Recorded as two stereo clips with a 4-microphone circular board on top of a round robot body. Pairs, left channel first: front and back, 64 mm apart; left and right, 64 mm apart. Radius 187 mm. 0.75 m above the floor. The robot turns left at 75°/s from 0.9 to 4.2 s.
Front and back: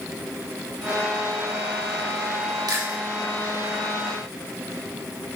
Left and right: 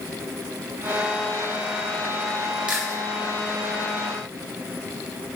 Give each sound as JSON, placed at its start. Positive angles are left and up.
{"t": 2.7, "sound": "chewing", "azimuth_deg": -160, "distance_m": 2.5}